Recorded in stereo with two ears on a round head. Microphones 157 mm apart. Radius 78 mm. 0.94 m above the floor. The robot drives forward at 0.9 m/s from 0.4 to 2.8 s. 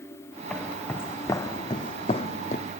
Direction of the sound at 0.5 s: 5° left (ahead or behind).